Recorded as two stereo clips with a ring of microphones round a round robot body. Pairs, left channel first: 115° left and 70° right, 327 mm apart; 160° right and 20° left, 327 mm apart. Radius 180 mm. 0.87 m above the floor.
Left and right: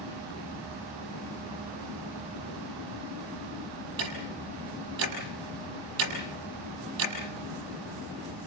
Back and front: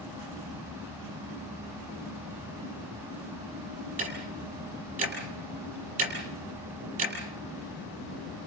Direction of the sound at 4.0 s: 45° right.